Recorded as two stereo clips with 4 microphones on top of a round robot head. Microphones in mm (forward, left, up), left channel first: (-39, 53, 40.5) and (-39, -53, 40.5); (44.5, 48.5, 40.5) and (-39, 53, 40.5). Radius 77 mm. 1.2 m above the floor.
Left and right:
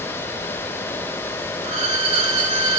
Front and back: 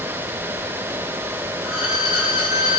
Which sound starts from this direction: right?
A violin, at 1.6 s.